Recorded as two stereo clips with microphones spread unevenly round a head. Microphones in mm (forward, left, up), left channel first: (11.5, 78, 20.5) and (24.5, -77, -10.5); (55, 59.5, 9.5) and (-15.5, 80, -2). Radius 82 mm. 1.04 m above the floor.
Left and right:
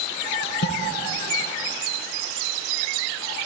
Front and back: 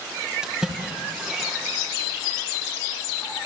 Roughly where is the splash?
Left.